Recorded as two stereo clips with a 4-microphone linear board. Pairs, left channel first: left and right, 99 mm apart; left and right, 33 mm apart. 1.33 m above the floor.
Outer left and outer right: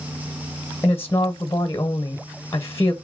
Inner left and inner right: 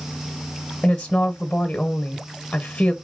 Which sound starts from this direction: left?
A woman speaking, at 0.8 s.